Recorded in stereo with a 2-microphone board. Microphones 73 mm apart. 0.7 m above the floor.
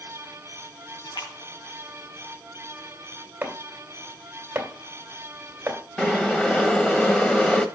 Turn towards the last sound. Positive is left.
turn(degrees=10)  # may be behind; listen again after turning